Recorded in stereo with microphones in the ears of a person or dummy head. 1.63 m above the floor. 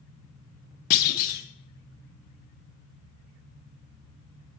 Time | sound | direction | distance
0.9 | a clunk | 50° left (ahead or behind) | 0.6 m